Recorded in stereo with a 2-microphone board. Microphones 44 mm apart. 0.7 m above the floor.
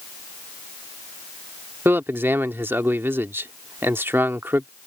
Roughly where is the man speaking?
Right.